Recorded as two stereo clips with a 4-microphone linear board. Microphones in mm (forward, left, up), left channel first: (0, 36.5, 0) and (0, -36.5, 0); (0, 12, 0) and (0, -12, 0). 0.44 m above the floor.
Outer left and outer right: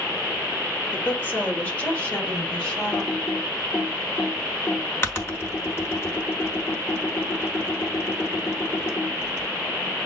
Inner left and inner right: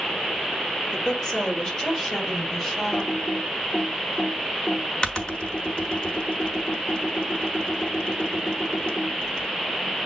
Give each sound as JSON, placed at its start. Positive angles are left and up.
{"t": 0.9, "sound": "a woman speaking", "side_deg": 30, "distance_m": 1.7}
{"t": 2.9, "sound": "typing on a keyboard", "side_deg": 35, "distance_m": 1.2}